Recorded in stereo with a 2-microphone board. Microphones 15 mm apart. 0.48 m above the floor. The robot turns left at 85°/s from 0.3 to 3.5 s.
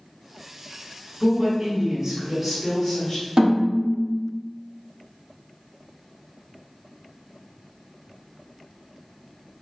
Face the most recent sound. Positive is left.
turn(degrees=-75)  # may be behind; listen again after turning